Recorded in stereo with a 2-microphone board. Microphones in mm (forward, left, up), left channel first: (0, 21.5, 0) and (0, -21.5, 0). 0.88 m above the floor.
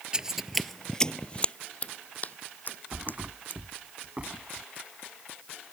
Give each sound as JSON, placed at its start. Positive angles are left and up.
{"t": 0.1, "sound": "footsteps", "side_deg": -15}
{"t": 2.9, "sound": "a thud", "side_deg": -30}